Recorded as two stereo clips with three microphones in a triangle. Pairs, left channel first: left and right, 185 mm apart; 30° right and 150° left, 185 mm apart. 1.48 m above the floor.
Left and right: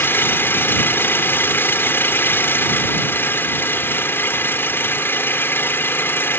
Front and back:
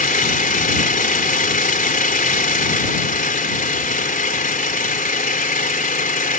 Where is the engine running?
10° left.